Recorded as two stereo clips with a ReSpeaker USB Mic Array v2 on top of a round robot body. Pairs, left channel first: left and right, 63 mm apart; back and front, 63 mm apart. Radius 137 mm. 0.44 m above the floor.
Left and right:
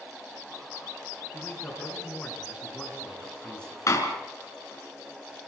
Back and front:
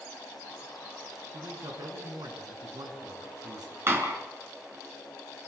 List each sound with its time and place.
1.3 s a man speaking: 15° left, 7 m
3.9 s a door slam: 50° left, 4.5 m